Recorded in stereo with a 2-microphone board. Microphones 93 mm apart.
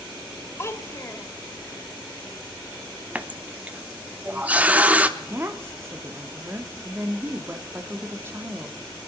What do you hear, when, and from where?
0.6 s a child speaking: 30° left (ahead or behind), 1.2 m
3.1 s a running tap: 15° right (ahead or behind), 0.7 m
5.2 s a woman speaking: 25° right (ahead or behind), 0.9 m